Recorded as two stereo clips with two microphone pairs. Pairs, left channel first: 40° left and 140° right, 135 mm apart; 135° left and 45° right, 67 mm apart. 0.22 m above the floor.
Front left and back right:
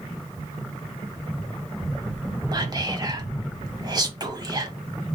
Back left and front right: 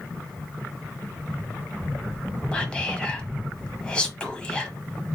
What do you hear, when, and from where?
2.5 s whispering: 165° right, 1.1 m